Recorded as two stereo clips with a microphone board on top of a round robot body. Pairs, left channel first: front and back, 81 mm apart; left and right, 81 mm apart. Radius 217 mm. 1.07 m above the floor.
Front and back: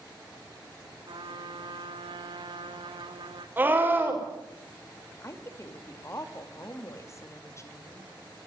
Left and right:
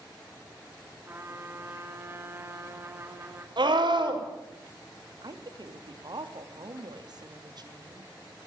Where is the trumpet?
155° right, 2 m.